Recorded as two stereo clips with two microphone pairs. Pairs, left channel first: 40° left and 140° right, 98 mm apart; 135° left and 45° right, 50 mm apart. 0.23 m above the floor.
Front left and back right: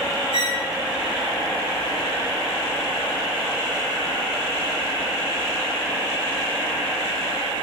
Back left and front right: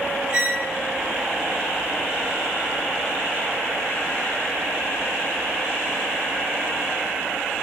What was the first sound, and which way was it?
A squeak, 115° right.